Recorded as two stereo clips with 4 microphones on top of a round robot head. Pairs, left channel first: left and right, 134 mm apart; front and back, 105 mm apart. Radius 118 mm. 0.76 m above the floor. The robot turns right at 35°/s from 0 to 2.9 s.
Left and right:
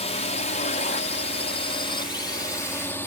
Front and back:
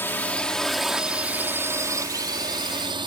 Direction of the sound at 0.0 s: 65° left.